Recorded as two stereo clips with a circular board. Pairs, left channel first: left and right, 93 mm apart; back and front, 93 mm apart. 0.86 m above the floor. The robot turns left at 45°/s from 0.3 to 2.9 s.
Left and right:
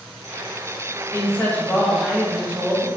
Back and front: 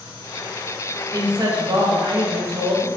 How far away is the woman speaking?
About 0.7 m.